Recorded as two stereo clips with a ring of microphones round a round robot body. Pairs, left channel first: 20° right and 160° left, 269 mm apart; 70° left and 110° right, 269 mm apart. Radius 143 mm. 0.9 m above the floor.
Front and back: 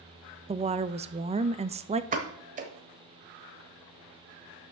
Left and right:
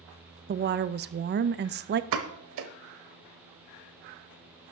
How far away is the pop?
About 0.9 m.